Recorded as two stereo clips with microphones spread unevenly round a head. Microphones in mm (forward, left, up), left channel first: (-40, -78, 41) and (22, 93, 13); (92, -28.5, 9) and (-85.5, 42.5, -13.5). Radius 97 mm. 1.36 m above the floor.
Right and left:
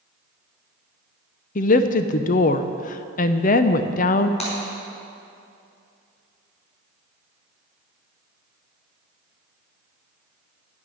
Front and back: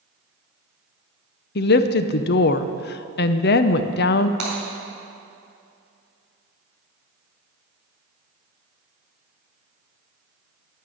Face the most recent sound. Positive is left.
turn(degrees=-165)